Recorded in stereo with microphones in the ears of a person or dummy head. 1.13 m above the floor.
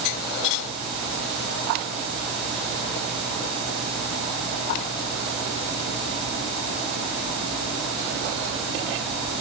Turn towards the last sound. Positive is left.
No sound to turn to.